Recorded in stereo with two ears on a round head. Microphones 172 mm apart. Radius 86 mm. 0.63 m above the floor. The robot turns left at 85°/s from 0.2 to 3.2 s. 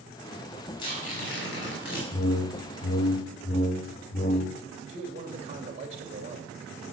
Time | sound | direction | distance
0.8 | tearing paper | 155° left | 5.5 m
2.1 | a whoosh | 135° left | 0.6 m
4.9 | a man speaking | 40° right (ahead or behind) | 2 m